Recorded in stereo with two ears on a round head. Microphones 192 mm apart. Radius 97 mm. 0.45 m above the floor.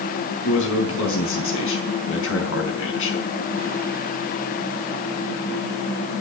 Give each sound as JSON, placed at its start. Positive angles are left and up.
{"t": 0.4, "sound": "a man speaking", "side_deg": 70, "distance_m": 5.0}